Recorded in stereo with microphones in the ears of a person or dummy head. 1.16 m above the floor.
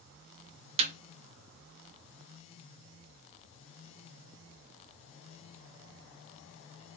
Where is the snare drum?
30° right (ahead or behind), 0.6 m.